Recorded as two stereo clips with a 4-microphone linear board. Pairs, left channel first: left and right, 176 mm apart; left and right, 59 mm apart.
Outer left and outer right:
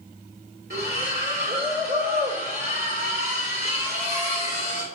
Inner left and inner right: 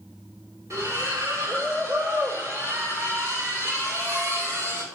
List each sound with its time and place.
0.7 s a splash: 65° right (ahead or behind), 2.0 m